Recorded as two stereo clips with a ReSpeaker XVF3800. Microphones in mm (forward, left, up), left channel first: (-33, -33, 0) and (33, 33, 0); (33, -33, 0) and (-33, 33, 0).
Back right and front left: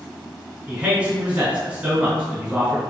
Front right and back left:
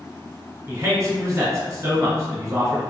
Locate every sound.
0.7 s a man speaking: 110° left, 1.3 m